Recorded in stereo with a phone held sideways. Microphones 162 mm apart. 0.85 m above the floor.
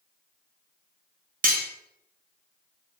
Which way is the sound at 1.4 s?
55° right (ahead or behind).